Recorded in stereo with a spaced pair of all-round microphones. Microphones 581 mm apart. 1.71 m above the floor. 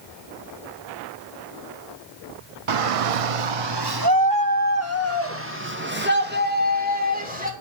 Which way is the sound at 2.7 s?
55° right (ahead or behind).